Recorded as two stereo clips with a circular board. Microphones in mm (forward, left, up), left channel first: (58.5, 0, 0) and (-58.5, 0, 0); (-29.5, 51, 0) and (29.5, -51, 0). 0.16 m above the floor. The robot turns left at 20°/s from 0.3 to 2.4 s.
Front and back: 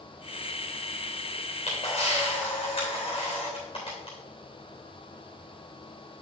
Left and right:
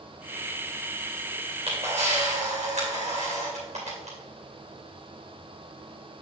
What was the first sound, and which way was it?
A camera shutter, 25° right.